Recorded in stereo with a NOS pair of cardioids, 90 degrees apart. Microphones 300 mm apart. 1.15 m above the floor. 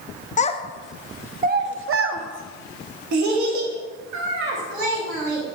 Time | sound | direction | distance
0.4 | a child speaking | 25° left | 0.7 m